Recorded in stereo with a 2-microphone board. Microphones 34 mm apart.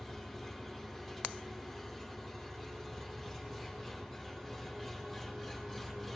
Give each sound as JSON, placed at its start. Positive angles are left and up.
{"t": 0.0, "sound": "an engine running", "side_deg": -5, "distance_m": 8.0}